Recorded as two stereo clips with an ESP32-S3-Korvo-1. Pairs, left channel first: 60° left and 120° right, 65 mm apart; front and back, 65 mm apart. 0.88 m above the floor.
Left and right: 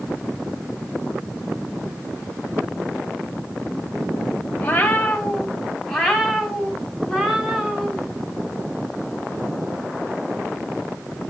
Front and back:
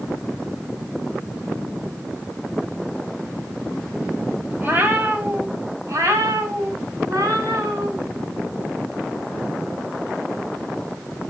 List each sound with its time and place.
4.6 s a cat meowing: 120° left, 1.8 m; by 8.0 s 160° left, 3 m